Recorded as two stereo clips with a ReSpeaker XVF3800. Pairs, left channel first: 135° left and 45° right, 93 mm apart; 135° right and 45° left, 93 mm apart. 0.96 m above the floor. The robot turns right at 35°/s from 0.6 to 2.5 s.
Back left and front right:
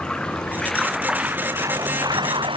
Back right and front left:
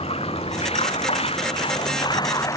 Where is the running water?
145° right; by 2.6 s 80° right.